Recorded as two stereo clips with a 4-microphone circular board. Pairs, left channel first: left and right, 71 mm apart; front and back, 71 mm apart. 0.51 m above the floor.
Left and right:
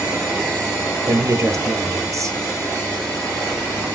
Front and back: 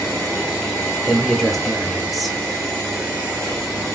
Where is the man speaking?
90° right, 1.0 m.